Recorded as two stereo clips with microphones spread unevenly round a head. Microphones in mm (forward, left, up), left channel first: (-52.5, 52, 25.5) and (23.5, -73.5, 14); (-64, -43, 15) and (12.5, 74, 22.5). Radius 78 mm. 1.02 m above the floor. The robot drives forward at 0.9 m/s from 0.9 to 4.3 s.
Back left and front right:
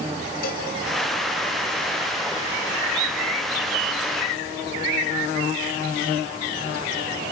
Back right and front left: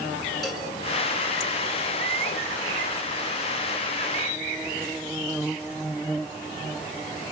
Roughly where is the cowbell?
Behind left.